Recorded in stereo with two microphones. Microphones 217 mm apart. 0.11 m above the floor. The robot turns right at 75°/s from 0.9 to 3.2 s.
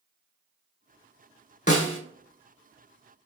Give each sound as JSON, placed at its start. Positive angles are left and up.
{"t": 1.7, "sound": "a snare drum", "side_deg": 35, "distance_m": 0.7}